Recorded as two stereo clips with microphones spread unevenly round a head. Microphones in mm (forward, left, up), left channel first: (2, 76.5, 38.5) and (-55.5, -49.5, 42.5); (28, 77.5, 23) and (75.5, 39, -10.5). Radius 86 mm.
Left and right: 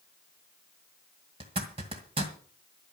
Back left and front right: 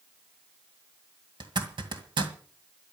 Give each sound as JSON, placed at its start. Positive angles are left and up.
{"t": 1.4, "sound": "a zipper", "azimuth_deg": -60, "distance_m": 2.0}